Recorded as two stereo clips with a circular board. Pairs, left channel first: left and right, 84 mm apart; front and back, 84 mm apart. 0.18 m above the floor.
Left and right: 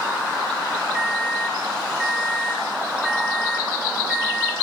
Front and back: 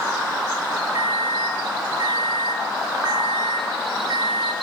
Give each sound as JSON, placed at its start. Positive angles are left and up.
{"t": 0.9, "sound": "a microwave", "azimuth_deg": 180, "distance_m": 3.5}